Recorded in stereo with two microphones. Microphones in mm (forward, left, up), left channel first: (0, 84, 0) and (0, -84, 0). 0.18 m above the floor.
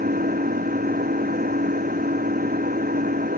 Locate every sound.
0.0 s an engine running: 55° right (ahead or behind)